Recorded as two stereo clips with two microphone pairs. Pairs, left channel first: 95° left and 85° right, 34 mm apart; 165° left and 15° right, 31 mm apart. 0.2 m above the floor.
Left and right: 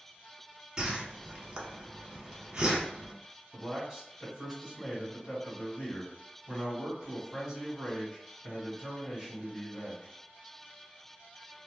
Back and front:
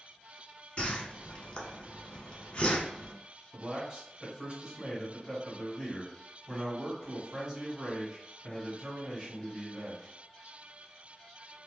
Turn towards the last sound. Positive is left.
turn(degrees=-15)